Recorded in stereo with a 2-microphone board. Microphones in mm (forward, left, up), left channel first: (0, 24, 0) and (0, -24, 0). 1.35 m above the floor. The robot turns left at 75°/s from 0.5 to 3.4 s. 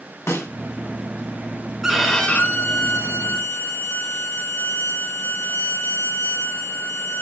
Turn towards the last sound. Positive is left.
turn(degrees=75)